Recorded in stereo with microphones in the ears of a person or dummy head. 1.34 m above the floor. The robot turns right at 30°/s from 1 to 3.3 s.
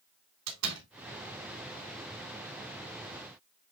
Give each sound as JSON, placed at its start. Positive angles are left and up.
{"t": 0.5, "sound": "a door slam", "side_deg": -85, "distance_m": 3.5}